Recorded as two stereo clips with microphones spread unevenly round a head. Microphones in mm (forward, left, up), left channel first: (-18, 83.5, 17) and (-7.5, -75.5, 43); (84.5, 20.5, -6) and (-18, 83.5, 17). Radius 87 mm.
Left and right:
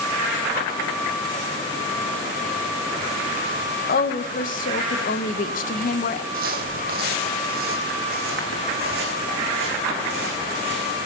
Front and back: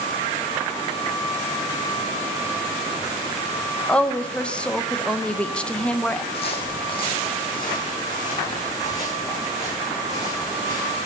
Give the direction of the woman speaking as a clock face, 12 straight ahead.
10 o'clock.